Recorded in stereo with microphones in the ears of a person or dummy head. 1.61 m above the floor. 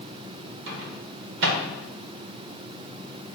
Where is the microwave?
60° right (ahead or behind), 1.3 m.